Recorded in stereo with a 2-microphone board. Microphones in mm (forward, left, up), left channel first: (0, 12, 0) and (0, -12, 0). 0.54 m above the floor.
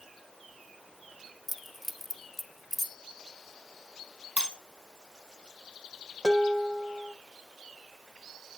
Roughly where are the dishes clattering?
Right.